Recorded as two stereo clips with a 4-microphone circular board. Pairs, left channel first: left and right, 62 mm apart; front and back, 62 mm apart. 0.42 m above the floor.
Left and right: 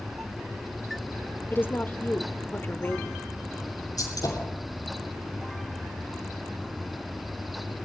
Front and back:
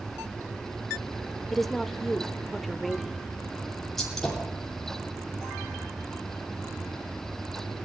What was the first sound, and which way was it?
A woman speaking, 85° left.